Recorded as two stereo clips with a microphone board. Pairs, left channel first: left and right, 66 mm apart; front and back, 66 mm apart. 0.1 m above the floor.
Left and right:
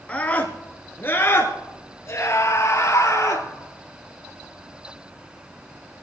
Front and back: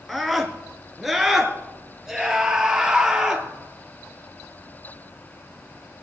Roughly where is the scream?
Left.